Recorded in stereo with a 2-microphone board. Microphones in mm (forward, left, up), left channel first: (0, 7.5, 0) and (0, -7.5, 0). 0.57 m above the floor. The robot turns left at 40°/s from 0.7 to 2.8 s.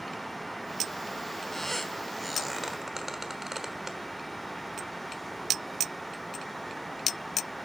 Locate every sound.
1.5 s a squeak: 30° left (ahead or behind), 1.1 m; by 4.0 s 20° right (ahead or behind), 1.1 m